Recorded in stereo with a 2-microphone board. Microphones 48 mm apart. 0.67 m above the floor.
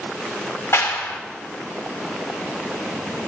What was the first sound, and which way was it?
A clap, 70° left (ahead or behind).